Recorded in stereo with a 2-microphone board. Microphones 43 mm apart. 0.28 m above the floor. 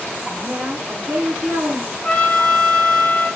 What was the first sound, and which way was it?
A woman speaking, 55° right (ahead or behind).